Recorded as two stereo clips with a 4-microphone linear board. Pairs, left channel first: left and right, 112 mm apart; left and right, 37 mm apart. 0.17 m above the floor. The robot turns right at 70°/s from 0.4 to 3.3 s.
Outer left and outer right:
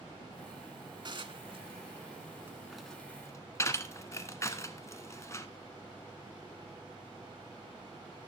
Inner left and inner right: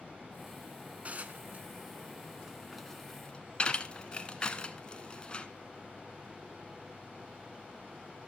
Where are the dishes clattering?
40° right (ahead or behind), 1.1 m; by 5.5 s 25° left (ahead or behind), 1.1 m.